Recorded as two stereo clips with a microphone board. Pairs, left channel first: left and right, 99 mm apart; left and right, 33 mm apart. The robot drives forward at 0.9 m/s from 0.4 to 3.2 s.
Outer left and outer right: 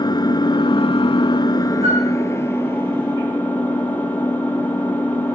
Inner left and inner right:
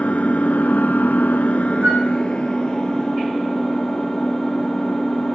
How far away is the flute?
About 6 m.